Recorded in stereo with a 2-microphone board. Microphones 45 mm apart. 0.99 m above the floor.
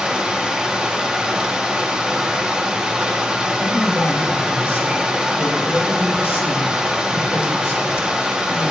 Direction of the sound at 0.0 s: 20° right (ahead or behind).